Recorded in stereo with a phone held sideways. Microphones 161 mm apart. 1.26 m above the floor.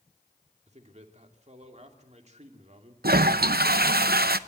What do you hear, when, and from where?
0.7 s a man speaking: 45° right (ahead or behind), 2.5 m
3.0 s a toilet flushing: 75° right (ahead or behind), 0.7 m